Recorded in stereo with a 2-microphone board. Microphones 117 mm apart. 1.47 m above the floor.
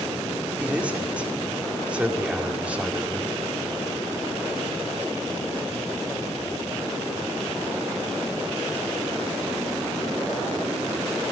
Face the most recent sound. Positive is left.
turn(degrees=-10)  # may be behind; listen again after turning